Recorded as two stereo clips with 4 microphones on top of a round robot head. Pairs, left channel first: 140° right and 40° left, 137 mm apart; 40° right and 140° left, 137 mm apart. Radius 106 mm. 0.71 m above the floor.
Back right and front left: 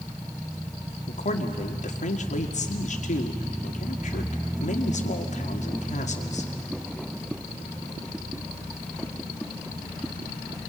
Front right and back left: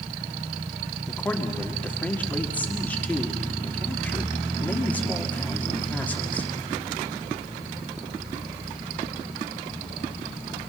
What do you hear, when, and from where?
1.1 s a man speaking: 120° right, 2.0 m